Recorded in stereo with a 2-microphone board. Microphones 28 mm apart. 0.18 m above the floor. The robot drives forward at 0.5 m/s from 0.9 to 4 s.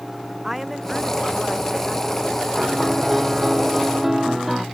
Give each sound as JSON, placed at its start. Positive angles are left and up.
{"t": 0.4, "sound": "a woman speaking", "side_deg": -5}
{"t": 2.6, "sound": "a piano", "side_deg": -10}